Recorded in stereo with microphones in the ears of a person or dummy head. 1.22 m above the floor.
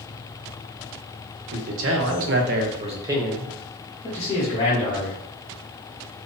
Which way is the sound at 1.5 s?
65° right (ahead or behind).